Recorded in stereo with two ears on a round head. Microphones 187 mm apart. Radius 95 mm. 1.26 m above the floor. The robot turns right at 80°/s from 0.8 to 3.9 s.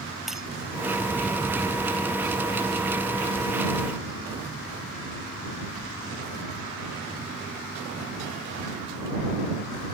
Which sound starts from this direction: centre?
Breaking glass, at 0.3 s.